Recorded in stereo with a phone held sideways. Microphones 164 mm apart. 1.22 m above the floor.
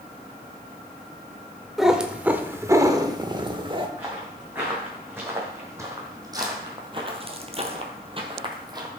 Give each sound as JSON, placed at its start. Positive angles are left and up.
{"t": 1.8, "sound": "a cat meowing", "side_deg": 0, "distance_m": 1.0}
{"t": 4.0, "sound": "footsteps", "side_deg": -10, "distance_m": 5.0}